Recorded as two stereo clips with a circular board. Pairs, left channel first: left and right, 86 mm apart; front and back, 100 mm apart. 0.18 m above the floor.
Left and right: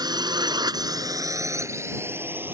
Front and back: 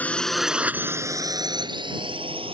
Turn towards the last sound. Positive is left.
turn(degrees=-155)